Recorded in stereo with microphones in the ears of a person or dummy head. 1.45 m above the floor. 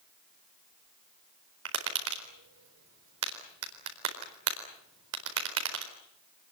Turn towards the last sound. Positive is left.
turn(degrees=-85)